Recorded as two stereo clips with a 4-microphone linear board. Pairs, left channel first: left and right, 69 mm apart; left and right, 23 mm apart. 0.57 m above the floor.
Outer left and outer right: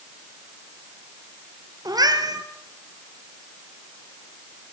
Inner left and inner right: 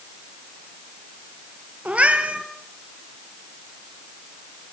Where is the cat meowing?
75° right (ahead or behind), 2.5 m.